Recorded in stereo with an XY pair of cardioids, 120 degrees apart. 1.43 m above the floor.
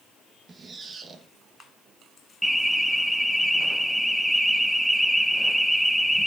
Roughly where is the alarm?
Ahead.